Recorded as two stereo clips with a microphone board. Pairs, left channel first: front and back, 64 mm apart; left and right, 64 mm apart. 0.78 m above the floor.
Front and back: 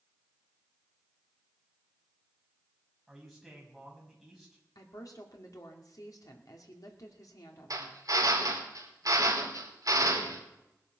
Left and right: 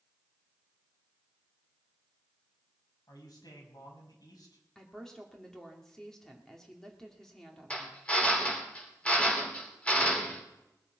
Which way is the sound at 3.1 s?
95° left.